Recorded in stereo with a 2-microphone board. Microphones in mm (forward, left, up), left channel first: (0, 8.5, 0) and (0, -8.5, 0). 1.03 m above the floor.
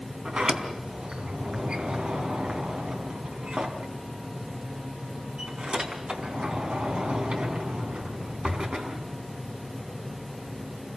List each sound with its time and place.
0.2 s a sliding door: 85° right, 4 m